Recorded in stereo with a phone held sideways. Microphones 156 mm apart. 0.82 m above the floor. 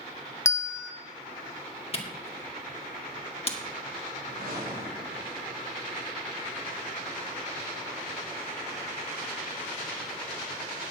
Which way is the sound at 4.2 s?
75° right (ahead or behind).